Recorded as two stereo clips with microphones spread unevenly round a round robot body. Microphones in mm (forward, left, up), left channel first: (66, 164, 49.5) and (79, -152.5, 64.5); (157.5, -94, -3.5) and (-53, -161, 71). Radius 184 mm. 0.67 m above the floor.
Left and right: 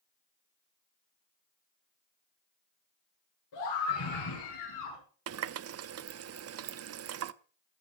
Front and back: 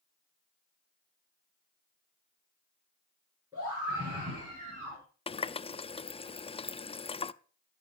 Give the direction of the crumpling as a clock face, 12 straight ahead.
No crumpling in this recording.